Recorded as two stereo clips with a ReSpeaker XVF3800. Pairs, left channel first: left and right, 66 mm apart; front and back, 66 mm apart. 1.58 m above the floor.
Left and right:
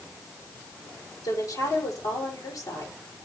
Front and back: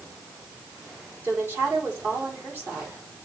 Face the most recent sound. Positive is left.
turn(degrees=115)